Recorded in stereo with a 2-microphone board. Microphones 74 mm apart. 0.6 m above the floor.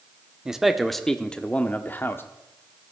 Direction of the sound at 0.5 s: 10° right (ahead or behind).